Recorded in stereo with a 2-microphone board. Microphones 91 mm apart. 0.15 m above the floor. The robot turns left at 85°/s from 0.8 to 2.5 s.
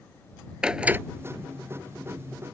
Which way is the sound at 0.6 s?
10° right (ahead or behind).